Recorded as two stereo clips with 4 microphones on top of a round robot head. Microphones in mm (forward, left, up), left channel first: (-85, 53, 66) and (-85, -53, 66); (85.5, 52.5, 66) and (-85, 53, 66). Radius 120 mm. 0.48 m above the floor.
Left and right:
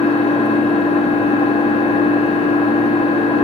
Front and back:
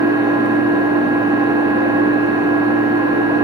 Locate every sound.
0.0 s an engine running: 110° left, 1.7 m